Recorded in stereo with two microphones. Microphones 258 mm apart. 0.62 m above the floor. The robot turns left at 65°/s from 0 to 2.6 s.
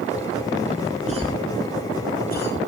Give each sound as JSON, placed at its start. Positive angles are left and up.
{"t": 1.1, "sound": "a cough", "side_deg": -30, "distance_m": 1.6}